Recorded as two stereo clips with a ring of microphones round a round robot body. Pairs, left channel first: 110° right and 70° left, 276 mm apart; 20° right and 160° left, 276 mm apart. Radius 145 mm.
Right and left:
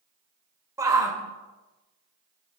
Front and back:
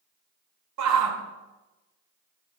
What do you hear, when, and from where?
0.8 s a shout: 145° left, 1.7 m